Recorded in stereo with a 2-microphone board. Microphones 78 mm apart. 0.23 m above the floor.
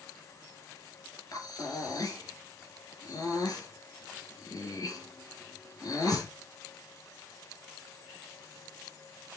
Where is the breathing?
55° left (ahead or behind), 4 m.